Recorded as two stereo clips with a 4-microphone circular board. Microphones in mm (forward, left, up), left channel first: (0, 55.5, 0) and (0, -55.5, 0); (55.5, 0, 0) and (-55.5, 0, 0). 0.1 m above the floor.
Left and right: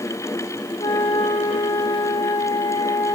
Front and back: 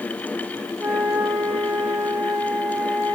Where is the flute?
100° left, 2 m.